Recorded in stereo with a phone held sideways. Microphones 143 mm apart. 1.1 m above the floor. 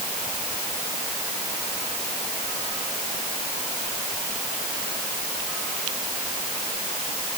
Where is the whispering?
I don't hear whispering.